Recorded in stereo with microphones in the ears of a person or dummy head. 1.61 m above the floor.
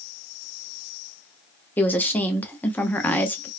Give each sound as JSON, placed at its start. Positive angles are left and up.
{"t": 1.8, "sound": "a woman speaking", "side_deg": 10, "distance_m": 0.7}